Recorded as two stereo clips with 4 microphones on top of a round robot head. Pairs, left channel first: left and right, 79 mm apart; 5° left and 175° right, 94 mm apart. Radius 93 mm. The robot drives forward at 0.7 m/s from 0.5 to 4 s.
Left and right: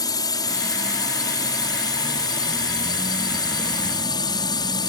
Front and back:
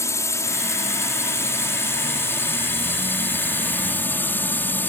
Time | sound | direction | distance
0.0 | a drone | 60° left | ?